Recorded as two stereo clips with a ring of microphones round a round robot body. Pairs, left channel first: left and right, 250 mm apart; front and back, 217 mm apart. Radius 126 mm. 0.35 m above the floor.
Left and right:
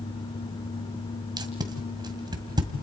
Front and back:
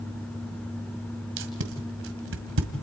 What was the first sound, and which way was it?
Tape being pulled, 160° right.